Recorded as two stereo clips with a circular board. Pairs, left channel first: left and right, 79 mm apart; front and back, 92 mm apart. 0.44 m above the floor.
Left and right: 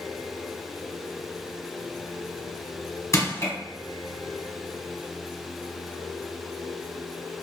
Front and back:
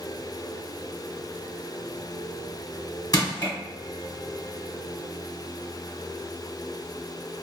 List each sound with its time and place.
3.1 s crushing: 40° left, 1.3 m